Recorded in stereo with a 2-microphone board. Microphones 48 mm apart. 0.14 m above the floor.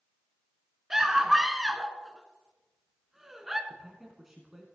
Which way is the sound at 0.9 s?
10° right (ahead or behind).